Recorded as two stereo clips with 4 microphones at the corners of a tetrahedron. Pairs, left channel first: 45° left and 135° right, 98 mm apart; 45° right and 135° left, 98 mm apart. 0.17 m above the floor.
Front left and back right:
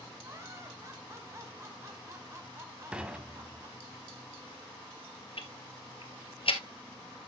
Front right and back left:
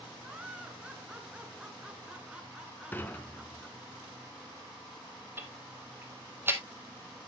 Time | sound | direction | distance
0.2 | laughter | 160° right | 1.3 m
2.9 | dishes clattering | 70° right | 0.9 m
5.4 | ticking | 70° left | 1.7 m